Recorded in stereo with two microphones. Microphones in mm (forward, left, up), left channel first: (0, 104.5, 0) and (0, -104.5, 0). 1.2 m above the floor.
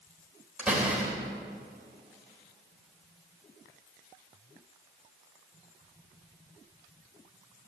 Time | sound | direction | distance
0.6 | a door slam | 5° right (ahead or behind) | 3.5 m